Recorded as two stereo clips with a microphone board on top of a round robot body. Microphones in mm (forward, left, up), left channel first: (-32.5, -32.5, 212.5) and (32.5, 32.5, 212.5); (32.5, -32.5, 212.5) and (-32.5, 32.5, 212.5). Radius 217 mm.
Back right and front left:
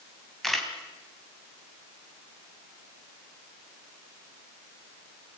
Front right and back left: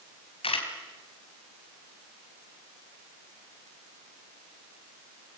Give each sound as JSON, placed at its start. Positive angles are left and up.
{"t": 0.4, "sound": "a camera shutter", "azimuth_deg": -45, "distance_m": 4.0}